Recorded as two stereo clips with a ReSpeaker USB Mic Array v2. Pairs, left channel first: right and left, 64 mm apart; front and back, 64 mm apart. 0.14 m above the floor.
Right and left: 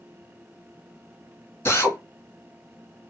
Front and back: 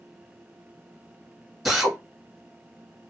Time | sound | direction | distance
1.6 | a drill | 95° right | 2 m